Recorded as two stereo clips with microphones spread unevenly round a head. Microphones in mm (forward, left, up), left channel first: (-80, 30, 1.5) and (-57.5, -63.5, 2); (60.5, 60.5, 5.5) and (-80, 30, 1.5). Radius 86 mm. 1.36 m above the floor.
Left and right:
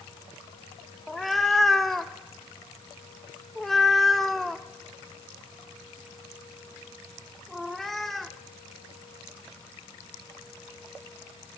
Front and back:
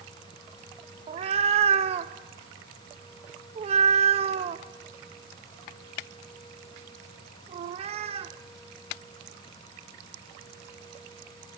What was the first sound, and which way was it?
A cat meowing, 170° right.